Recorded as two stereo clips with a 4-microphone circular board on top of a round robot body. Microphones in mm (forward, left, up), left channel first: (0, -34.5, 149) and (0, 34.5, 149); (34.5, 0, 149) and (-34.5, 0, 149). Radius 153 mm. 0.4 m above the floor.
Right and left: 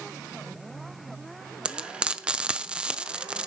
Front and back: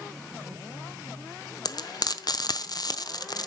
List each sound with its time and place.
1.6 s frying: 15° left, 1.0 m